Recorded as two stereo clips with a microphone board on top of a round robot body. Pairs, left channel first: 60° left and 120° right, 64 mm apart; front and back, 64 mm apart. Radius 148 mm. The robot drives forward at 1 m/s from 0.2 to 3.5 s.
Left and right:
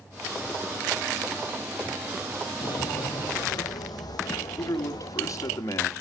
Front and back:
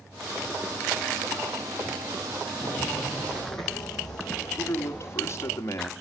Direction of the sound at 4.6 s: 40° left.